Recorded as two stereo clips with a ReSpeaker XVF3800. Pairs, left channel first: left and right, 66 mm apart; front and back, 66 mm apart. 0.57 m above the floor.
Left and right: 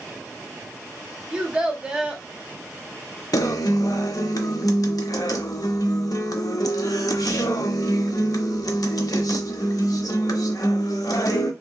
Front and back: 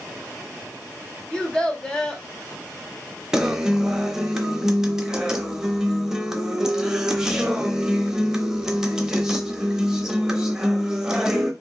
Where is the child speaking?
50° right, 0.7 m.